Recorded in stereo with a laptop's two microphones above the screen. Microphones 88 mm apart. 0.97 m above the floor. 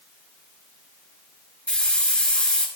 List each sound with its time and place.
1.7 s a hiss: 15° left (ahead or behind), 3 m